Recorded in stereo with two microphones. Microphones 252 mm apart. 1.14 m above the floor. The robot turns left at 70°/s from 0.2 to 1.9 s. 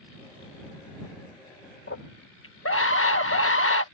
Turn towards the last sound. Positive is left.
turn(degrees=50)  # may be behind; listen again after turning